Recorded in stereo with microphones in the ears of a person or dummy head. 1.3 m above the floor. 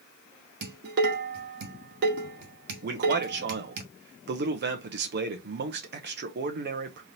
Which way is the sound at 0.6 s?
50° right (ahead or behind).